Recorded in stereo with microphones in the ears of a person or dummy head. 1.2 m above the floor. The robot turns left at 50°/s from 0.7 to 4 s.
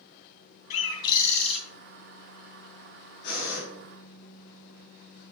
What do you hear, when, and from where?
0.7 s a bird: 45° left, 3 m; by 1.6 s straight ahead, 3 m
3.2 s breathing: 55° left (ahead or behind), 4 m; by 3.6 s 75° left (ahead or behind), 4 m